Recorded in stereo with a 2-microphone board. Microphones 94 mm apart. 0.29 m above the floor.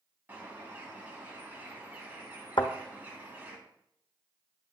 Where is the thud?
70° left (ahead or behind), 1.1 m.